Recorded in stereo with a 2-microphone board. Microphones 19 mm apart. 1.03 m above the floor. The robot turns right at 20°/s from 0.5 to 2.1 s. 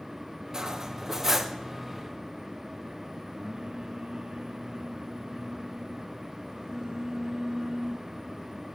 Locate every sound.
0.5 s cutlery clinking: 35° right (ahead or behind), 0.5 m; by 1.6 s 15° right (ahead or behind), 0.5 m
3.3 s singing: 45° right (ahead or behind), 0.8 m